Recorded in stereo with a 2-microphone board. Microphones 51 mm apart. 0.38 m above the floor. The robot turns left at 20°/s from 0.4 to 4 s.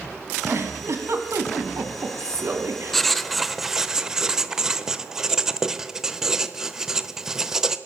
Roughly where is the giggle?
Ahead right.